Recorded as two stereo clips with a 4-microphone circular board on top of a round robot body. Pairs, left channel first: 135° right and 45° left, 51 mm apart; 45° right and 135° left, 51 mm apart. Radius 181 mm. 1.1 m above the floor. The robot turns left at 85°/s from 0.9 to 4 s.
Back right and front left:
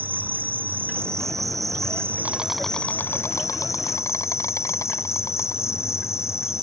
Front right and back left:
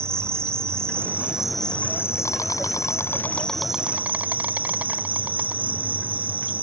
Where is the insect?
100° left; by 6.6 s 165° right.